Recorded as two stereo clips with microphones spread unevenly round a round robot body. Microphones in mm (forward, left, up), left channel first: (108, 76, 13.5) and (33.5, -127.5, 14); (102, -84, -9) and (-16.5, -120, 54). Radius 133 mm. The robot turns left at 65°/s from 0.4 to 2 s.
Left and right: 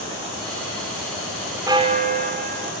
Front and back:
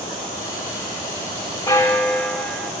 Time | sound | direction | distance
1.7 | a bell | 35° right | 2.5 m